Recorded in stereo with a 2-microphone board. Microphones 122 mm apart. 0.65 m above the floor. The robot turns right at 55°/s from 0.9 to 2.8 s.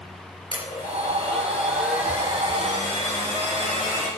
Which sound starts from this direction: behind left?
A blender, at 0.5 s.